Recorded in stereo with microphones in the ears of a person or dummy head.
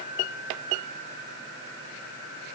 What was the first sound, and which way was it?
Only background noise.